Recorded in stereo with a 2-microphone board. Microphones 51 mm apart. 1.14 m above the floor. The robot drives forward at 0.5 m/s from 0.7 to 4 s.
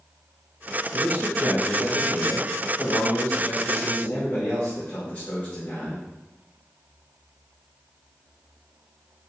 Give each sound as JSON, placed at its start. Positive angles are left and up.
{"t": 0.9, "sound": "a man speaking", "side_deg": 70, "distance_m": 1.4}